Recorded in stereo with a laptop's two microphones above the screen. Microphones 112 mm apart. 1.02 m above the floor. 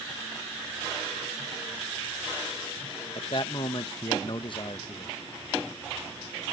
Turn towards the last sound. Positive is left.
turn(degrees=50)  # may be behind; listen again after turning